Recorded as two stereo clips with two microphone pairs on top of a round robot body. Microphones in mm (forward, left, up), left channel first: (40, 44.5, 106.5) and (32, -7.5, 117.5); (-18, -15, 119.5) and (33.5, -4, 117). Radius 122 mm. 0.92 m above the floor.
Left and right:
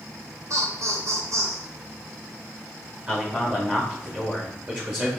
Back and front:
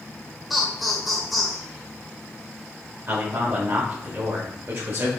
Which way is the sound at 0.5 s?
75° right.